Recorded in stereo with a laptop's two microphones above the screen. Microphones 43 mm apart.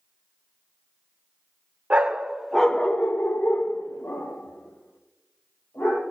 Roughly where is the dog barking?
Right.